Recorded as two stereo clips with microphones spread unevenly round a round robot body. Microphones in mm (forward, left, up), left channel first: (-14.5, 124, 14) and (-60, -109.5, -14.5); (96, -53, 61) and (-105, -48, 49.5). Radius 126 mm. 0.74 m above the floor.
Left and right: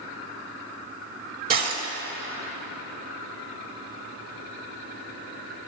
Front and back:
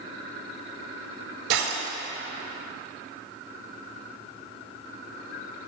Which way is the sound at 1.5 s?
155° right.